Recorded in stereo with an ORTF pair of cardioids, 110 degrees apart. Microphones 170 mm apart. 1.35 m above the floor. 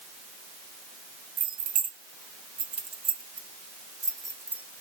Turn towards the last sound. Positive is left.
turn(degrees=-10)